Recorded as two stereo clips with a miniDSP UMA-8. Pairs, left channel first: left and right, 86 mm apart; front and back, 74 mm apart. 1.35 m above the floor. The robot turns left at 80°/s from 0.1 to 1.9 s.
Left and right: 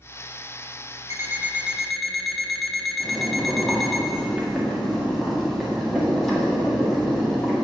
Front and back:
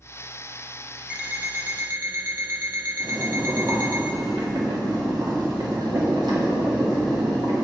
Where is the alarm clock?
115° right, 0.9 m; by 4.0 s straight behind, 0.9 m.